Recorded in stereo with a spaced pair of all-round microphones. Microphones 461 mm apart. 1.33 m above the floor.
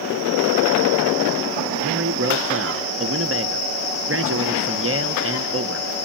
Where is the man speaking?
30° right (ahead or behind), 0.8 m.